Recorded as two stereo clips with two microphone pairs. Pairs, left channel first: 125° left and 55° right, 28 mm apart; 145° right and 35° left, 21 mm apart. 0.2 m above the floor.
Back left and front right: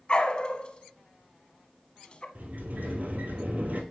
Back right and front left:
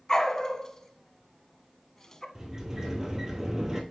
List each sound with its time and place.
0.1 s a dog barking: 165° left, 0.7 m
2.4 s a sliding door: 30° right, 1.5 m